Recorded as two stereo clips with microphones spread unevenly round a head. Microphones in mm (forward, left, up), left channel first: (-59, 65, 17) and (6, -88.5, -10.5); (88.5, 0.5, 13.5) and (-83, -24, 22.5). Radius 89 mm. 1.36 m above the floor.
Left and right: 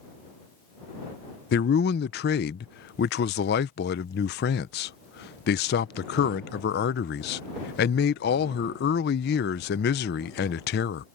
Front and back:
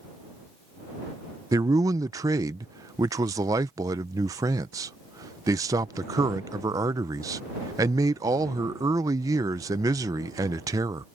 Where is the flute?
No flute in this recording.